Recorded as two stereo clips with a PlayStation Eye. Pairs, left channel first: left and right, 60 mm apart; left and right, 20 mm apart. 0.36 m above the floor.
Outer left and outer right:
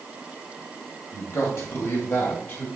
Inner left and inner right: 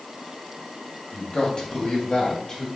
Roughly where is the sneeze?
I don't hear a sneeze.